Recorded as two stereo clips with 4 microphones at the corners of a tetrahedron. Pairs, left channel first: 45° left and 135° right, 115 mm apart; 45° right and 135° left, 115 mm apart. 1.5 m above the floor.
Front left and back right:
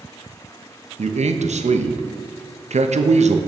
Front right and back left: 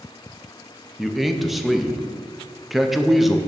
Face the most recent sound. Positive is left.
turn(degrees=-135)